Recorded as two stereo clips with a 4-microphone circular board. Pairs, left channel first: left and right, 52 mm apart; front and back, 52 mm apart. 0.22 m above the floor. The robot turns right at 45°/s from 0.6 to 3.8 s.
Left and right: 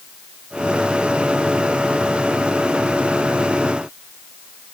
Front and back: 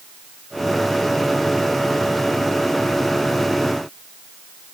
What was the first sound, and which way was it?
Only background noise.